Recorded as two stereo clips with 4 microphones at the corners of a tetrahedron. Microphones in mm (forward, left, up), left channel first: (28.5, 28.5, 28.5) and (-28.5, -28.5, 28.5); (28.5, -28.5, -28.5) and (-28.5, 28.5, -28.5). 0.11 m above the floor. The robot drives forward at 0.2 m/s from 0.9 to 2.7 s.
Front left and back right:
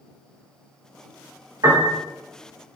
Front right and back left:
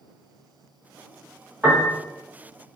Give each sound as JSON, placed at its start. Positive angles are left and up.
{"t": 1.6, "sound": "a piano", "azimuth_deg": -160, "distance_m": 0.8}